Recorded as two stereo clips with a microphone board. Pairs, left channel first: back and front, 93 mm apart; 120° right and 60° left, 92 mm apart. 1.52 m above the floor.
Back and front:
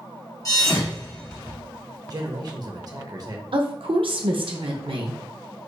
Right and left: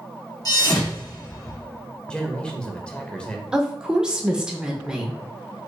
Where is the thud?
145° right, 1.2 m.